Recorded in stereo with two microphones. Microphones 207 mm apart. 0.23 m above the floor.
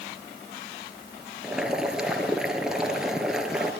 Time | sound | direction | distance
1.4 | boiling | 5° right (ahead or behind) | 3 m